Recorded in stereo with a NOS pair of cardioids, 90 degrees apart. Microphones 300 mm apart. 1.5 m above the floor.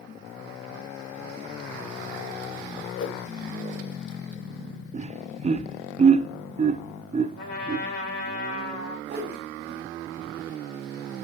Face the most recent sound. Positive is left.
turn(degrees=-35)